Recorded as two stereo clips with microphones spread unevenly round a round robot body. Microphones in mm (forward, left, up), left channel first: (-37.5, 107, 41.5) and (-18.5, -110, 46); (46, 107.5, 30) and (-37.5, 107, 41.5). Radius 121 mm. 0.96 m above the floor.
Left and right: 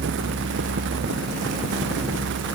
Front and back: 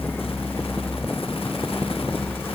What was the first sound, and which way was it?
Only background noise.